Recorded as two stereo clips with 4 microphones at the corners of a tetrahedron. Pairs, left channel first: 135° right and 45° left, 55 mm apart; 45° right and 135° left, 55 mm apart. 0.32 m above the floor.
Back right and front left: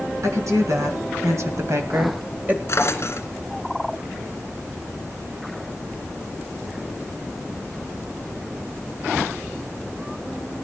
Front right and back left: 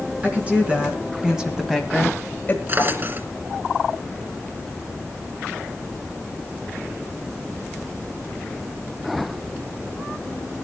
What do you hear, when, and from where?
0.2 s a woman speaking: 70° left, 3.5 m; by 2.6 s 15° right, 1.3 m
2.7 s a drawer: 175° right, 1.7 m